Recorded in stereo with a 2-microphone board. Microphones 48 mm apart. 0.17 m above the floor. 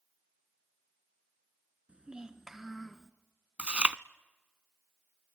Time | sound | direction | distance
1.9 | a child speaking | 25° right (ahead or behind) | 1.3 m
3.6 | chewing | 25° right (ahead or behind) | 0.5 m